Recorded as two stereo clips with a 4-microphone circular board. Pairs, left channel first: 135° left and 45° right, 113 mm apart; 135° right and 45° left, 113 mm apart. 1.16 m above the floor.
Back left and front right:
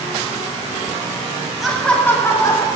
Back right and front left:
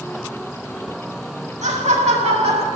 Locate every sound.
1.6 s laughter: 45° left, 1.9 m; by 2.7 s 80° left, 3 m